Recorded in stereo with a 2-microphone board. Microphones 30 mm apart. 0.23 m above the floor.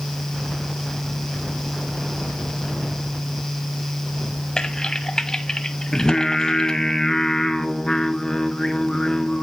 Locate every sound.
4.6 s typing on a keyboard: 25° left (ahead or behind), 1.1 m
5.9 s singing: 20° left (ahead or behind), 0.9 m